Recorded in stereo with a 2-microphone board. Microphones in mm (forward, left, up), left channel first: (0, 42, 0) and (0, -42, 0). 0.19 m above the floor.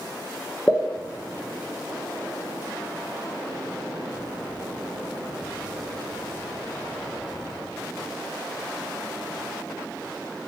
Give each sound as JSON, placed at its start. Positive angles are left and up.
{"t": 0.7, "sound": "a pop", "side_deg": 15, "distance_m": 1.4}